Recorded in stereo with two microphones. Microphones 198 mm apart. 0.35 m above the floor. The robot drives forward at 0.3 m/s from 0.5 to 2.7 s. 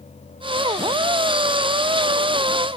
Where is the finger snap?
I don't hear a finger snap.